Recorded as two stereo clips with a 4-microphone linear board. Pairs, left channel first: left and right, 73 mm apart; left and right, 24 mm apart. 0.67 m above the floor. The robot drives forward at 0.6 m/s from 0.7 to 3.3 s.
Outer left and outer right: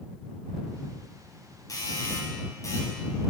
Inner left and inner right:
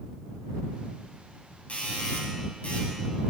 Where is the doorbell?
55° left (ahead or behind), 5.5 m; by 3.3 s 50° left (ahead or behind), 6.5 m.